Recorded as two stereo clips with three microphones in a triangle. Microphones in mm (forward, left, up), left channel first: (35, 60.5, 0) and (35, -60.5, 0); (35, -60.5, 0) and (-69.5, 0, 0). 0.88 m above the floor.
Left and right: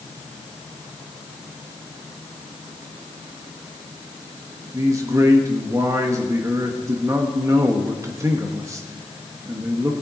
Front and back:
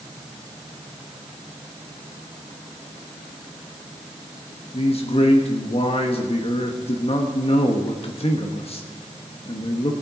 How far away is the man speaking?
About 1.3 m.